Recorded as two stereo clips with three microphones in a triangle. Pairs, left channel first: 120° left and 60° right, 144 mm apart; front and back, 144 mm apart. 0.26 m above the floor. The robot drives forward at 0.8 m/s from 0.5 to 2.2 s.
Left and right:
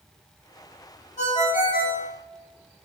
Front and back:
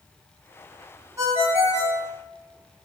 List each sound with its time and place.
1.2 s a ringtone: 115° left, 0.7 m; by 2.1 s 155° left, 1.2 m